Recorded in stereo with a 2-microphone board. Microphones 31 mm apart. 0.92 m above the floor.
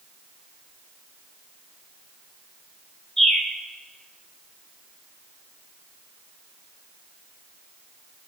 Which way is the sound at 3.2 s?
20° left (ahead or behind).